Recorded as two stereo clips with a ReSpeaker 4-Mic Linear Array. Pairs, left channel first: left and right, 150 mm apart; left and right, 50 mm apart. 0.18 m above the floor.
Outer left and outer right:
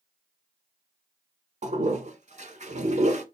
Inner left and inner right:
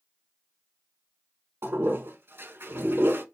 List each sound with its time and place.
1.6 s a toilet flushing: 55° right (ahead or behind), 0.6 m